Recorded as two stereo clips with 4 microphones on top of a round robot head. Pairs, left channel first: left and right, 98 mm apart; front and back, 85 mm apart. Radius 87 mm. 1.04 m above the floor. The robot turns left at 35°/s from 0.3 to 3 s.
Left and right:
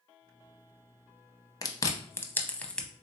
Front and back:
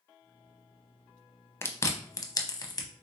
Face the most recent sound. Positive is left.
turn(degrees=5)